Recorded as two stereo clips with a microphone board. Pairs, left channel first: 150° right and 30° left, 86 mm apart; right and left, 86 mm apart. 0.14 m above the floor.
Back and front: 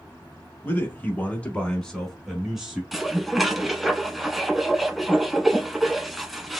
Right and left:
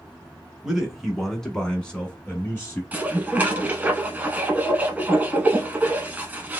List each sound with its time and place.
0.6 s a man speaking: 170° left, 1.2 m; by 2.8 s 45° right, 1.2 m
2.9 s dishes clattering: 120° left, 0.8 m